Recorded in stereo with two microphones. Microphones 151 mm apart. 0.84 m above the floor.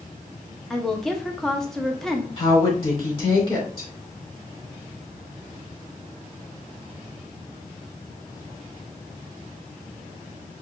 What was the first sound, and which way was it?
A woman speaking, 5° left (ahead or behind).